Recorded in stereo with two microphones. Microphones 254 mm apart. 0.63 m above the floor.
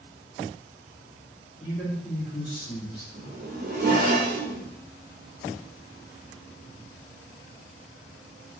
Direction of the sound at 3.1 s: 40° right (ahead or behind).